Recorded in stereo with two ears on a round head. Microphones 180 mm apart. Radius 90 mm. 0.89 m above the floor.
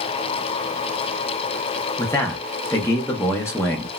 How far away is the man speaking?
About 0.6 m.